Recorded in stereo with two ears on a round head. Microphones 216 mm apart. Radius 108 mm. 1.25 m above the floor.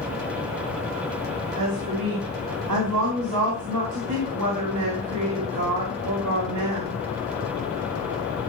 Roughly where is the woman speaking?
Right.